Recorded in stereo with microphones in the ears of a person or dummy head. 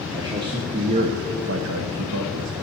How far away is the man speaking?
About 0.9 m.